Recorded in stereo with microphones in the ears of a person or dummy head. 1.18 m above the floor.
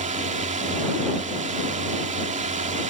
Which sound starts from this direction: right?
A drone, at 0.0 s.